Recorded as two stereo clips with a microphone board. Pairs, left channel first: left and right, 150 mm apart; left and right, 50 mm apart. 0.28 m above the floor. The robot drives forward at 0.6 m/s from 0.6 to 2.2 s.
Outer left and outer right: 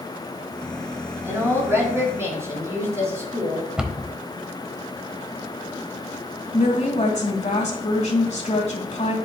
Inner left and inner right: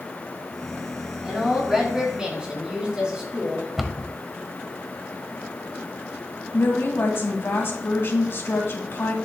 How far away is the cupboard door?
About 0.8 m.